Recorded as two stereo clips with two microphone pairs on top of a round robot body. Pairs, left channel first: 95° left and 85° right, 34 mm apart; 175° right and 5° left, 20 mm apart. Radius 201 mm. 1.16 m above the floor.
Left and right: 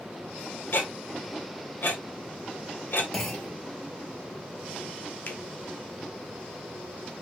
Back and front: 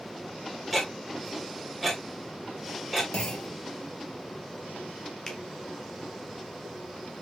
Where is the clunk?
175° left, 1.9 m.